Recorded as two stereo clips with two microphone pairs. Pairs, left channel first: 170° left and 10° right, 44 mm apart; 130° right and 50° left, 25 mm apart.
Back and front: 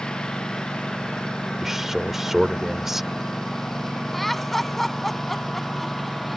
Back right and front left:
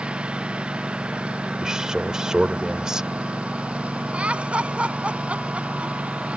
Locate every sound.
0.0 s a lawn mower: 95° left; by 6.4 s 80° left
1.6 s a man speaking: 60° left
4.1 s laughter: 80° left